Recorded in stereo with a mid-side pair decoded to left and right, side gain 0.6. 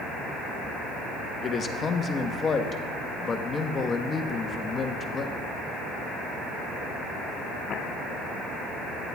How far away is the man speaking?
About 1.4 m.